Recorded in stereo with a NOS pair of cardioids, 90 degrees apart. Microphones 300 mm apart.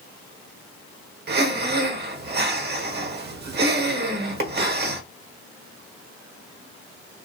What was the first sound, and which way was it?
Breathing, 35° right.